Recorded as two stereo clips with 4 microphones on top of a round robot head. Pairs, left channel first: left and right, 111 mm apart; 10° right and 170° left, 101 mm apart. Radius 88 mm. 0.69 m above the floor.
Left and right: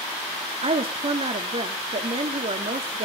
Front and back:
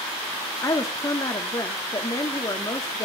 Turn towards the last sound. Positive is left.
turn(degrees=-65)